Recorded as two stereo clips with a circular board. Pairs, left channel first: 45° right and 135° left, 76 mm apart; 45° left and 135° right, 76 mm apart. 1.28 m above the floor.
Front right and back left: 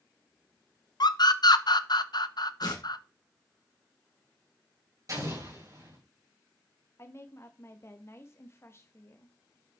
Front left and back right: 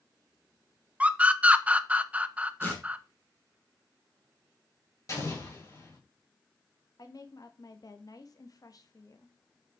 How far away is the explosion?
About 4 m.